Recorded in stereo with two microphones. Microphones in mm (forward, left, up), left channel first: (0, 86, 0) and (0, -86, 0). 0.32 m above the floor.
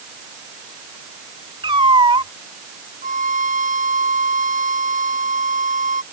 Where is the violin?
50° right (ahead or behind).